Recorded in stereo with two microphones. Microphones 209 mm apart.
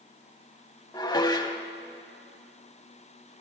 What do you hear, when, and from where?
0.9 s dishes clattering: 20° left (ahead or behind), 0.7 m